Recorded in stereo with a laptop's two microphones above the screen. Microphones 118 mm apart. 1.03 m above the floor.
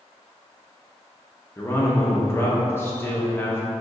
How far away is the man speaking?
About 0.7 m.